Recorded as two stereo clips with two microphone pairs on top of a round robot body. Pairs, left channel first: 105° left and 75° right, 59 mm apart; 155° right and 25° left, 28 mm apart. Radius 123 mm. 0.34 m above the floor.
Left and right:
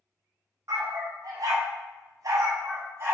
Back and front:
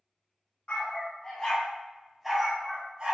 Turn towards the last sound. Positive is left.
turn(degrees=-30)